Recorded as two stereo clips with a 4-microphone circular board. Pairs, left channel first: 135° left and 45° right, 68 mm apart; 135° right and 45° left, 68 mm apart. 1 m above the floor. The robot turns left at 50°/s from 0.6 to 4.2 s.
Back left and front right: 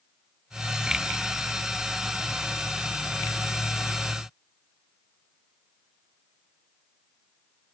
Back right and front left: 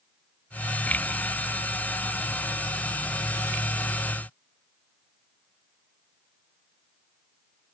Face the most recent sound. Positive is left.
No sound to turn to.